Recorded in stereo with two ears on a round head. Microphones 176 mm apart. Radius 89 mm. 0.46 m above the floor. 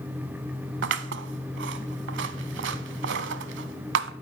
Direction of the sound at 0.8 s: 65° right (ahead or behind).